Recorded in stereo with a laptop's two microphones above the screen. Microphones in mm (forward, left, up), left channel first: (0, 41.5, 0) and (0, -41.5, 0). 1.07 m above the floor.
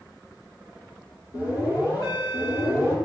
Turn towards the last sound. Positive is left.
turn(degrees=50)  # may be behind; listen again after turning